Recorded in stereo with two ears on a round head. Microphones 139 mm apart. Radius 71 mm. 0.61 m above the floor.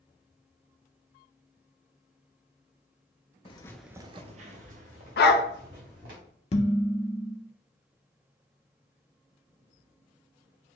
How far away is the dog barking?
About 0.6 m.